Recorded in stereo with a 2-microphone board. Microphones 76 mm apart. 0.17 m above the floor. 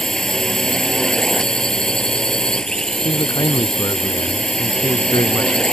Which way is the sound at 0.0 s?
10° left (ahead or behind).